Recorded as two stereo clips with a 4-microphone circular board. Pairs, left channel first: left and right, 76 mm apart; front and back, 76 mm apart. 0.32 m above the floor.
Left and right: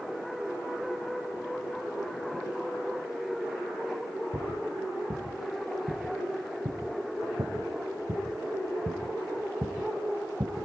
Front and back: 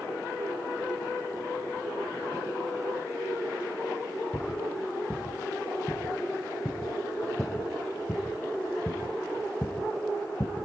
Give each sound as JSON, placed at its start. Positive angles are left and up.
{"t": 4.3, "sound": "footsteps", "azimuth_deg": -90, "distance_m": 5.5}